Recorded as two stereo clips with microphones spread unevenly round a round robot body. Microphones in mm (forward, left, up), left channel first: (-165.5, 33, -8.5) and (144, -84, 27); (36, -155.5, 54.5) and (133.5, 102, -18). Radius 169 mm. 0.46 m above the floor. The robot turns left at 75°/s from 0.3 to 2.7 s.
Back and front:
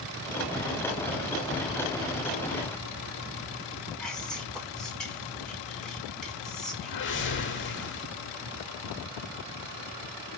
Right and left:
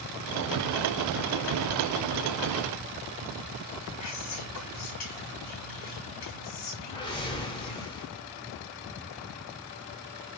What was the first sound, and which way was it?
Whispering, 120° right.